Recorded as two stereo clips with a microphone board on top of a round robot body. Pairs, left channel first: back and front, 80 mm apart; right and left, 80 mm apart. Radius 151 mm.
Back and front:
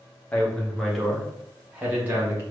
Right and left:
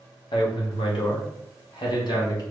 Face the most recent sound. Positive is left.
turn(degrees=-60)